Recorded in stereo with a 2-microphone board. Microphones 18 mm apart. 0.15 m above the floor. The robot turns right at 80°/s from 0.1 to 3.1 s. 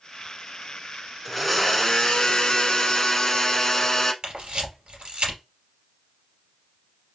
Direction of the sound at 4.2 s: 50° right (ahead or behind).